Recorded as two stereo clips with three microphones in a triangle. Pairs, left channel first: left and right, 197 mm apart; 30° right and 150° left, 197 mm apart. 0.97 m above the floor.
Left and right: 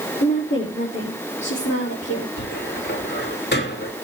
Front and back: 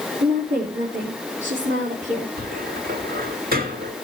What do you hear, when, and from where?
0.2 s a woman speaking: 110° left, 2.5 m; by 2.3 s 95° left, 4 m
2.4 s a cupboard door: 115° left, 2 m